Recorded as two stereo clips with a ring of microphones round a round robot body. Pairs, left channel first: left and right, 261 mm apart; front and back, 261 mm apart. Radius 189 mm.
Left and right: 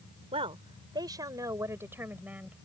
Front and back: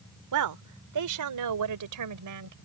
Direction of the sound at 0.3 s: 165° right.